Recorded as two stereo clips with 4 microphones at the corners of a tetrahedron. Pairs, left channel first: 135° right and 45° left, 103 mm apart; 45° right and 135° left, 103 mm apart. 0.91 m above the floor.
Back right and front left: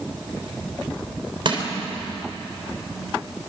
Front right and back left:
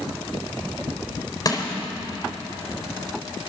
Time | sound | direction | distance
1.4 | crushing | 10° left | 4 m